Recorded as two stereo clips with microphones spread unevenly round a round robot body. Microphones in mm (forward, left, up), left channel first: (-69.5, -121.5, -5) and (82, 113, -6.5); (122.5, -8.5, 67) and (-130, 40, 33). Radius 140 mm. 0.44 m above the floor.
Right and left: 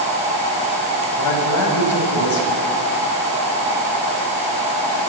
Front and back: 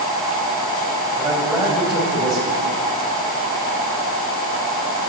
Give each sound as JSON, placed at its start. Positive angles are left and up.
{"t": 1.2, "sound": "a man speaking", "azimuth_deg": -105, "distance_m": 3.0}